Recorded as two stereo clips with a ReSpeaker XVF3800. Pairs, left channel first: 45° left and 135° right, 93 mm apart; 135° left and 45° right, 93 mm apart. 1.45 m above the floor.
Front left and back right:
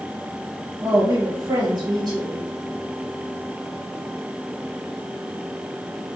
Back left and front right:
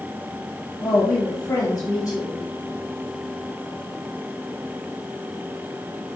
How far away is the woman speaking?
About 1.2 m.